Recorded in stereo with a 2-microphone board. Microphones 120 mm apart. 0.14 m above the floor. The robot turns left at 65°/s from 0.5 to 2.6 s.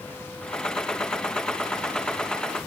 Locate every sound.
Only background noise.